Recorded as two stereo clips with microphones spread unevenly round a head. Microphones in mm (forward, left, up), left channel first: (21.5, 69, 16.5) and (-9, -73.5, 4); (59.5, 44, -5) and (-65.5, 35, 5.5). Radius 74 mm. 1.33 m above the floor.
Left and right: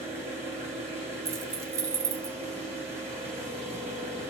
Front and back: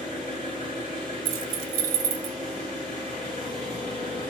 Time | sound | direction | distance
0.0 | an engine running | 55° right | 7 m
1.2 | keys jangling | 175° right | 0.8 m